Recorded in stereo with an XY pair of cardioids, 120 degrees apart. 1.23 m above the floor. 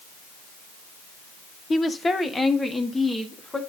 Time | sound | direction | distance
1.7 | a woman speaking | 30° left | 0.8 m